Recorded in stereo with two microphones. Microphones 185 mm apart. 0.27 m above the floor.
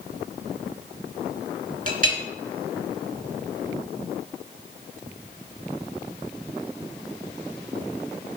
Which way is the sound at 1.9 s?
50° right (ahead or behind).